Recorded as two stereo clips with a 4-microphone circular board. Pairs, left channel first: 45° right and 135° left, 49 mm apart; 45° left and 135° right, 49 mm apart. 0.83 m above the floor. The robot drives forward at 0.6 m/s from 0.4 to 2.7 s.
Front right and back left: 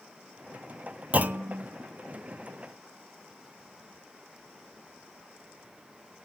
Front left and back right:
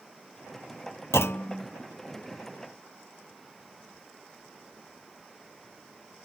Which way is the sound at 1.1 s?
70° left.